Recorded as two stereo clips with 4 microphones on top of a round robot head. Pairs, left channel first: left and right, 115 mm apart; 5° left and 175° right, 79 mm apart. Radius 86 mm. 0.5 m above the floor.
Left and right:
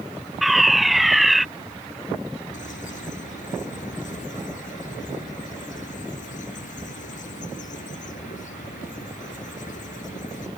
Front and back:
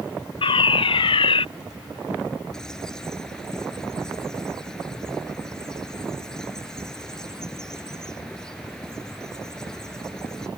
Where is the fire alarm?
Straight ahead.